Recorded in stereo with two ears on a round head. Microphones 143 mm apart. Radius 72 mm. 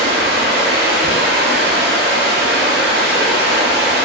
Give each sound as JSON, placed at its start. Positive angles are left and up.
{"t": 0.0, "sound": "running water", "side_deg": -80, "distance_m": 0.7}